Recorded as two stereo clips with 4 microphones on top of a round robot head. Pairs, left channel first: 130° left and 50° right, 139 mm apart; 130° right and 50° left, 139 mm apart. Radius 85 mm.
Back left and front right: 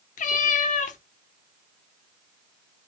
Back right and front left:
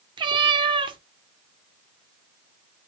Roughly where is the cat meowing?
Left.